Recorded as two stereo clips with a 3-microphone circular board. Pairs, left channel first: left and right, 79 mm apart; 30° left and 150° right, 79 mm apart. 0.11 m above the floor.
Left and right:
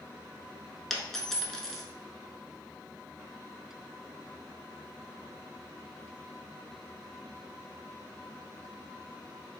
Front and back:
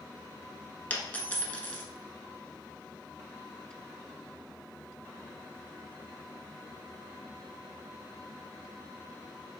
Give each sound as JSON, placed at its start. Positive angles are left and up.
{"t": 0.9, "sound": "a dropped coin", "azimuth_deg": 10, "distance_m": 0.6}